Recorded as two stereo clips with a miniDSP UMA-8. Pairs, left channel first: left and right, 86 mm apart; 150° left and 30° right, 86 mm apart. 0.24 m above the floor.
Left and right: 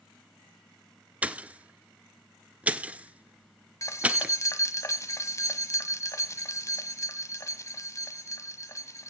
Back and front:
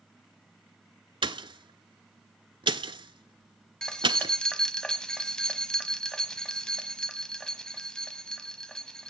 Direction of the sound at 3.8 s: 75° left.